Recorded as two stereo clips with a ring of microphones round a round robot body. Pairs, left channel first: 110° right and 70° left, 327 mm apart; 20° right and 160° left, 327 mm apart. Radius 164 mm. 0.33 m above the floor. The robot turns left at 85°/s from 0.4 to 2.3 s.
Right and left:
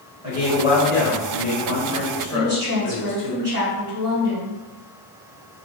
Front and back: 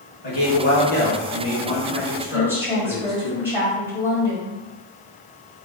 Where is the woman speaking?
75° left, 1.4 m.